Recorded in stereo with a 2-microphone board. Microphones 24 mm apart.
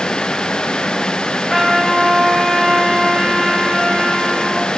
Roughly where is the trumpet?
Centre.